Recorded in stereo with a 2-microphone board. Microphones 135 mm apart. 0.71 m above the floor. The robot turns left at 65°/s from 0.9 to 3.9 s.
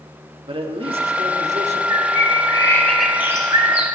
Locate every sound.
0.5 s a man speaking: 55° right, 1.4 m; by 1.8 s 115° right, 1.4 m
1.9 s a bird: 75° left, 2 m; by 3.9 s 55° right, 2 m